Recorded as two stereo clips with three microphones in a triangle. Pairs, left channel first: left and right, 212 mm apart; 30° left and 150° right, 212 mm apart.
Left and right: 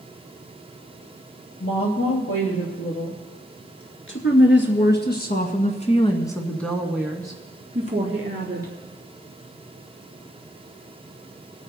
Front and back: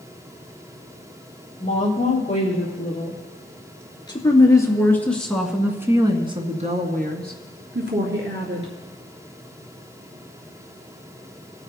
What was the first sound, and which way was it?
A woman speaking, 85° left.